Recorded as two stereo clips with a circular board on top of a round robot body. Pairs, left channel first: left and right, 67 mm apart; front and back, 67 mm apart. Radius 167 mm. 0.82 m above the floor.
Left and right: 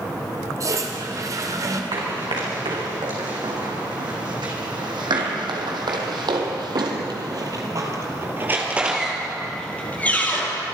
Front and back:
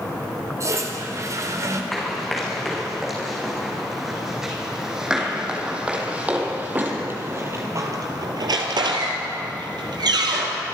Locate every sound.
0.6 s a toilet flushing: 130° right, 1.9 m
1.9 s running footsteps: 90° right, 5.5 m; by 10.6 s 150° left, 2.0 m